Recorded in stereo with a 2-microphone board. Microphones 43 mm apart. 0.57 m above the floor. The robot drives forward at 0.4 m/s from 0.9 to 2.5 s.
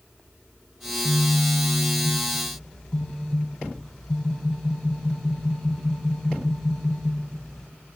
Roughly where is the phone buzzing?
Left.